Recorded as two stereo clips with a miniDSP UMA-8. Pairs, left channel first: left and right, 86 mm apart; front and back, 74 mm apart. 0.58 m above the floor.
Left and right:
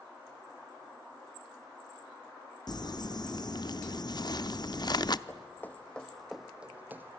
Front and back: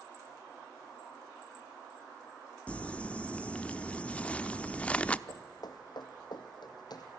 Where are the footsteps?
30° left, 2.0 m; by 7.2 s 30° right, 1.9 m.